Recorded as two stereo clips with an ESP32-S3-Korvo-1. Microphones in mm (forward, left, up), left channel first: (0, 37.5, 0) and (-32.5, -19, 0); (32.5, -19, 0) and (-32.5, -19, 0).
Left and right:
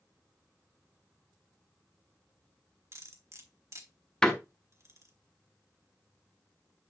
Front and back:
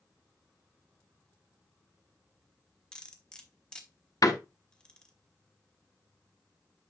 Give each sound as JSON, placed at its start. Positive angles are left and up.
{"t": 2.9, "sound": "cutlery clinking", "azimuth_deg": -75, "distance_m": 1.3}
{"t": 4.2, "sound": "a door slam", "azimuth_deg": -20, "distance_m": 1.2}